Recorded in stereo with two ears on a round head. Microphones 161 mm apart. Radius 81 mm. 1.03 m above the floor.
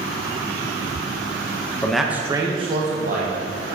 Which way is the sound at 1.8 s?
5° left (ahead or behind).